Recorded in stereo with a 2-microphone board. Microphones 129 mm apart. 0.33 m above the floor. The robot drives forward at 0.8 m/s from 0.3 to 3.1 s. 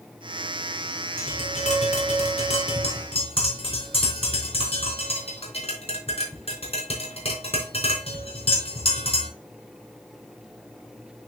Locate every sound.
1.2 s tapping: 65° left (ahead or behind), 3 m; by 9.3 s 50° left (ahead or behind), 3.5 m